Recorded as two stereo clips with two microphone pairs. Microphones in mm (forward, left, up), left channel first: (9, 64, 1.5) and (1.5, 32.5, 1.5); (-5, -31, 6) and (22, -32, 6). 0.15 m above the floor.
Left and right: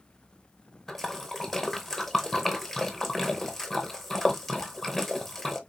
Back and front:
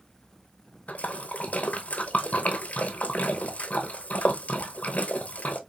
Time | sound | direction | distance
0.9 | a splash | 155° left | 0.8 m